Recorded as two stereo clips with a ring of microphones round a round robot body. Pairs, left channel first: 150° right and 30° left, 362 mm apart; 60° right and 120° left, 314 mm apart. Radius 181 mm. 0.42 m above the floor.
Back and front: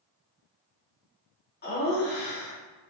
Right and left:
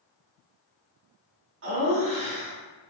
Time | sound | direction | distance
1.6 | laughter | 155° left | 1.0 m